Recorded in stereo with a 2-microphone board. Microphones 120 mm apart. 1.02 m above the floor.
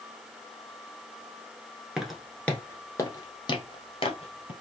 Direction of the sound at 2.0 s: 5° right (ahead or behind).